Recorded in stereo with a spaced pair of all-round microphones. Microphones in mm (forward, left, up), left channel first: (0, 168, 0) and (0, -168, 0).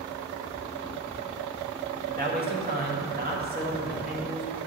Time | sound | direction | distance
2.1 | a man speaking | 30° right (ahead or behind) | 1.9 m